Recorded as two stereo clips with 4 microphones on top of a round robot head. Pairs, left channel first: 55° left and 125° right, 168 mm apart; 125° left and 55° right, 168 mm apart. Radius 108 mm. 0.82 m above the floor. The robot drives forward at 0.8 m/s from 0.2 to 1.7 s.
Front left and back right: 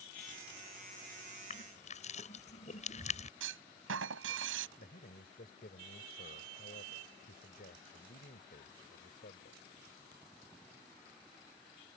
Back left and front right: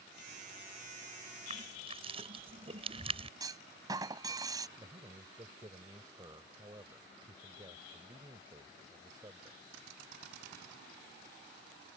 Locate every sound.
1.5 s crushing: 5° left
3.4 s a clunk: 125° right
4.8 s a man speaking: 15° left